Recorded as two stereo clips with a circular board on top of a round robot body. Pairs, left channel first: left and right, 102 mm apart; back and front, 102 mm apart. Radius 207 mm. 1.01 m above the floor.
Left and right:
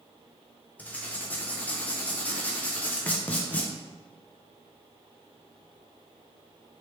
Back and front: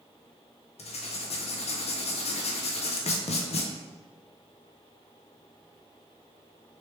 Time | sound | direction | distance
0.8 | writing | 165° left | 0.5 m